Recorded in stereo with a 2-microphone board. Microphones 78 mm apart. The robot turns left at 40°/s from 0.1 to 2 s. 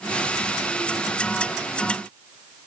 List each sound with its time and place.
Only background noise.